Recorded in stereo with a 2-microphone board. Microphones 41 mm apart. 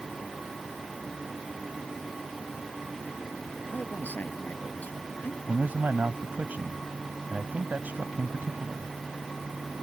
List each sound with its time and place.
3.7 s a man speaking: 40° left (ahead or behind)
5.5 s a man speaking: 45° right (ahead or behind)